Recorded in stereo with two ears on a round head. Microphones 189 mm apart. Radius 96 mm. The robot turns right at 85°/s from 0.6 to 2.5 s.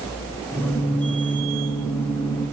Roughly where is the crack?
I don't hear a crack.